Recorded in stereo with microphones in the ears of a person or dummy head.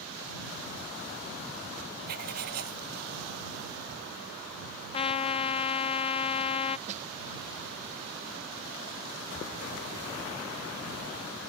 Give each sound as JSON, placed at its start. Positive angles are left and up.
{"t": 2.1, "sound": "writing", "side_deg": -50}
{"t": 4.9, "sound": "a trumpet", "side_deg": 30}
{"t": 6.9, "sound": "a snare drum", "side_deg": -40}